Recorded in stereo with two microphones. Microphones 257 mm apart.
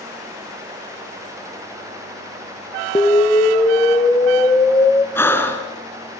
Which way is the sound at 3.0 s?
10° left (ahead or behind).